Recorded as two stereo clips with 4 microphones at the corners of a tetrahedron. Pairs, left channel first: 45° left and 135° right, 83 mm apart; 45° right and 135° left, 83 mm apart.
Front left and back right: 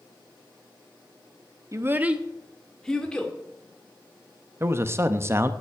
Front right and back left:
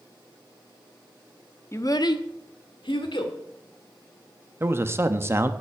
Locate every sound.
1.7 s a child speaking: 90° right, 0.6 m; by 3.3 s 35° right, 1.8 m
4.6 s a man speaking: straight behind, 0.6 m